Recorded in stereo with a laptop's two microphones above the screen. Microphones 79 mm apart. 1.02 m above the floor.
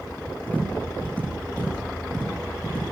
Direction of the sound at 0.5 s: 20° left (ahead or behind).